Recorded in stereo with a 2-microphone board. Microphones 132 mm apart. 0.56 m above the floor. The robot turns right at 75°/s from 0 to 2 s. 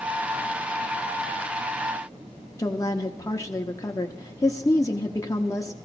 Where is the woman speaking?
25° left (ahead or behind), 0.8 m.